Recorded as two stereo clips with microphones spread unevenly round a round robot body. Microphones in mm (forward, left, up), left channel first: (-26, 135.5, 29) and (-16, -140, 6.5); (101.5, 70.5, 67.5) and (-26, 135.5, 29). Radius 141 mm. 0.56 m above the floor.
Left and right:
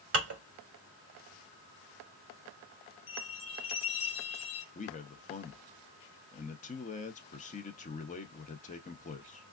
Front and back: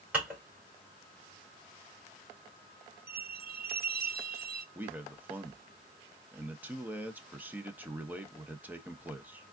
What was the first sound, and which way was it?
Dishes clattering, 125° right.